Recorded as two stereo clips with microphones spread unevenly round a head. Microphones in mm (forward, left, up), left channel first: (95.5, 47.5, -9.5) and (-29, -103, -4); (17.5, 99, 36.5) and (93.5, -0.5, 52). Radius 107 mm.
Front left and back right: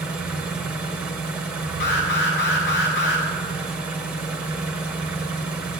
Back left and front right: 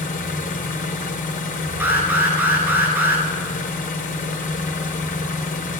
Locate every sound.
0.0 s an engine running: 145° left, 0.7 m
1.8 s an alarm: 25° left, 2 m